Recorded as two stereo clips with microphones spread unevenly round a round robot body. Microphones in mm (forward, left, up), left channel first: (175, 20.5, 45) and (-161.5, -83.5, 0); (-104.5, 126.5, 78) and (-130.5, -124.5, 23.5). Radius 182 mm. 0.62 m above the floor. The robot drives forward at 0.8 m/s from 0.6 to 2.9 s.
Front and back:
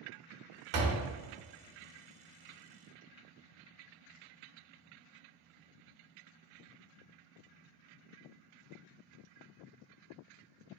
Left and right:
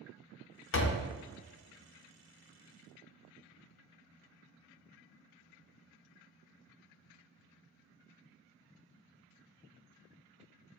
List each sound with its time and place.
0.7 s a door slam: 135° left, 0.5 m; by 1.1 s 150° left, 0.7 m